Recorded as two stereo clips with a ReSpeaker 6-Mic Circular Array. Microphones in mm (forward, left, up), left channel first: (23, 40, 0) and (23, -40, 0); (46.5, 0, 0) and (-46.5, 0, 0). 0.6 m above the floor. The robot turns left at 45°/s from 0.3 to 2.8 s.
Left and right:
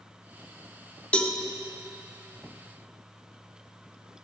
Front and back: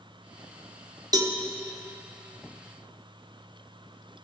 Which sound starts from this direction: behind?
A cowbell, at 1.1 s.